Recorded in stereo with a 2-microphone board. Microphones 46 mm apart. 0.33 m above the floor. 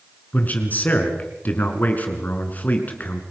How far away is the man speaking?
About 4 m.